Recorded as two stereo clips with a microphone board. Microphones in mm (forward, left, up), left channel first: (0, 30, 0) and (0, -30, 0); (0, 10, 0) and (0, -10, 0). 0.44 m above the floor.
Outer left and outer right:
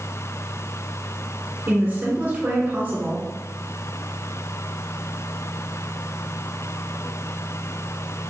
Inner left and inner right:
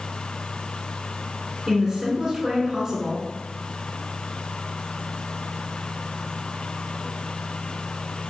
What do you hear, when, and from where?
1.7 s a woman speaking: 30° right (ahead or behind), 1.3 m